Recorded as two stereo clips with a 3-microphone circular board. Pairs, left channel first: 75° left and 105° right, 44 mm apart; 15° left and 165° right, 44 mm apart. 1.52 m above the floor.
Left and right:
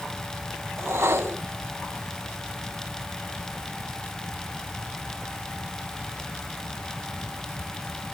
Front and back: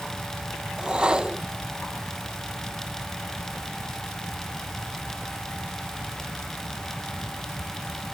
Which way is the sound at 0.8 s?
95° right.